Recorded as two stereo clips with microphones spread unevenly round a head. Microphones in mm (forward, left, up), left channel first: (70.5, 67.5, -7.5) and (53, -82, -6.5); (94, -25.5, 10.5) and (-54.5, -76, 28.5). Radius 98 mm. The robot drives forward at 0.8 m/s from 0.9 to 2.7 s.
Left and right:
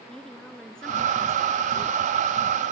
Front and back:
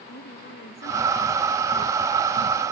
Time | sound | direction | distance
0.1 | a woman speaking | straight ahead | ?